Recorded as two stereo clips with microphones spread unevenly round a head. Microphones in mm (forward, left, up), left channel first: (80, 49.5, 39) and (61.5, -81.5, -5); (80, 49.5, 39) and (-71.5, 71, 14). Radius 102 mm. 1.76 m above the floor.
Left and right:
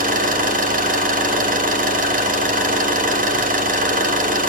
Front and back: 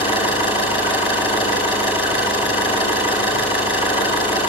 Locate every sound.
0.0 s an engine running: 75° right, 6 m